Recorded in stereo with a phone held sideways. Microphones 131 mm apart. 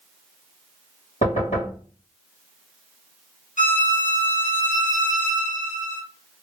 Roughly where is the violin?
Left.